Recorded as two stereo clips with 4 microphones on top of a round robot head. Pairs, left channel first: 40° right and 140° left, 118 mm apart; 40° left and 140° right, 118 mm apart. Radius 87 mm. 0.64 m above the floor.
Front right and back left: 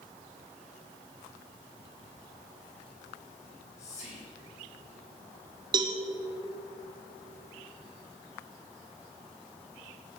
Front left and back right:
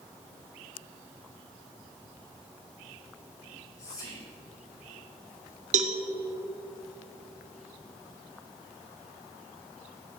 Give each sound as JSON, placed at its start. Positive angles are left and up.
{"t": 3.4, "sound": "whispering", "azimuth_deg": -20, "distance_m": 5.0}
{"t": 5.7, "sound": "a cowbell", "azimuth_deg": -165, "distance_m": 1.1}